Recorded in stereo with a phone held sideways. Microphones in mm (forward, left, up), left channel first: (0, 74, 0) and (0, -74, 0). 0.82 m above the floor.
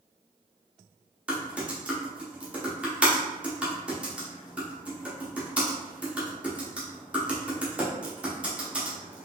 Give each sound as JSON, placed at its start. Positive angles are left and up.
{"t": 1.3, "sound": "typing on a keyboard", "side_deg": -5, "distance_m": 1.2}